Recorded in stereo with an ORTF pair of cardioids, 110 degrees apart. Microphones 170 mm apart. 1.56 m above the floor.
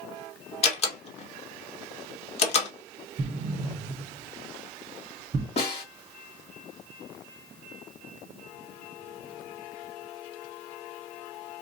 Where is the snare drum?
35° left, 3.5 m.